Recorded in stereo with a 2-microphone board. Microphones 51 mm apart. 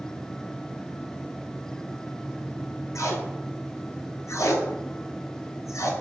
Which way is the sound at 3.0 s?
80° left.